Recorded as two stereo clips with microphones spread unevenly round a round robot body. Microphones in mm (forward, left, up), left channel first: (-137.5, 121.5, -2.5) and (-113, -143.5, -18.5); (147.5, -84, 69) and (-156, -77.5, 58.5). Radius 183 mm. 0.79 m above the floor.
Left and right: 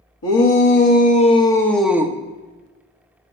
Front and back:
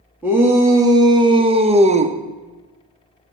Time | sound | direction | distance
0.2 | a shout | 100° left | 1.0 m